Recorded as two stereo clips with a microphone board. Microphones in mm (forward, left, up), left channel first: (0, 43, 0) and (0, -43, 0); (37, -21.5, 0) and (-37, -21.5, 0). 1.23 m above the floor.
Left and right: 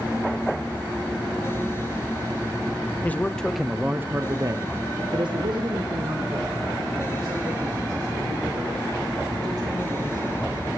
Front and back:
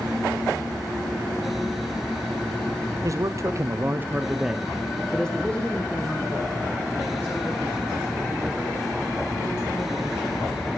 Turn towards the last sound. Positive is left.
turn(degrees=-65)